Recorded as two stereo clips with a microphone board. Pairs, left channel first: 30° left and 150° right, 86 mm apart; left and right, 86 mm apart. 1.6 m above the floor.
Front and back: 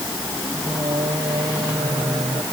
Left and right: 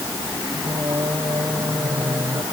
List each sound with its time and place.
0.5 s singing: 130° right